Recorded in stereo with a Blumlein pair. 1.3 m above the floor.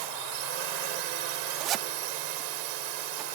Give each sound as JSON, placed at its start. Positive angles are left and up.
{"t": 0.0, "sound": "a drone", "azimuth_deg": -45}
{"t": 1.6, "sound": "a zipper", "azimuth_deg": -30}